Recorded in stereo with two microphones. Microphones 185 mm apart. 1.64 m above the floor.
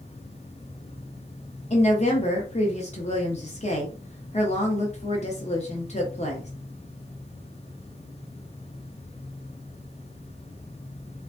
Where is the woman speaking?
35° left (ahead or behind), 0.7 m.